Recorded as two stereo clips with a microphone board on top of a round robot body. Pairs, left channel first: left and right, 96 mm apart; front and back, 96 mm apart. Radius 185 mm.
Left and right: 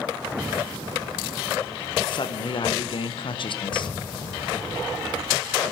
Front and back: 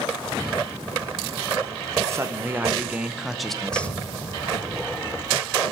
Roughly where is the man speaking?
Behind left.